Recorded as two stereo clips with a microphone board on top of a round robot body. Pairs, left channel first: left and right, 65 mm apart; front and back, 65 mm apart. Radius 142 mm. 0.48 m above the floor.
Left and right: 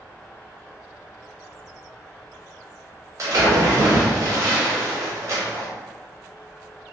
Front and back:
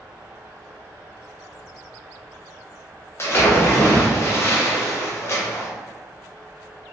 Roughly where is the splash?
Ahead right.